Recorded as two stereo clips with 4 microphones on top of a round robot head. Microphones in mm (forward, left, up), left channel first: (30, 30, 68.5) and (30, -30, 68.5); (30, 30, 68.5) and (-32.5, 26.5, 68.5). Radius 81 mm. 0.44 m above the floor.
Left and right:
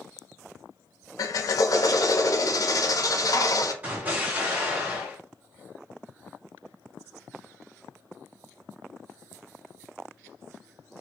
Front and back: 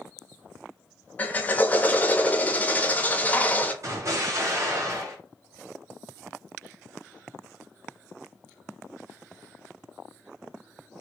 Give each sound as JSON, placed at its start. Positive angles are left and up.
{"t": 1.2, "sound": "a drill", "azimuth_deg": 70, "distance_m": 0.5}
{"t": 3.8, "sound": "an explosion", "azimuth_deg": -155, "distance_m": 1.6}